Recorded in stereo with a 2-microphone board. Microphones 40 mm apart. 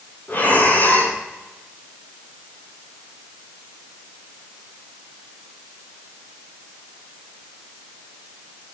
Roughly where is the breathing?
Left.